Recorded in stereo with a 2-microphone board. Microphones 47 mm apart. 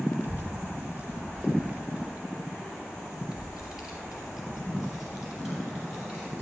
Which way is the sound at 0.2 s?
45° right (ahead or behind).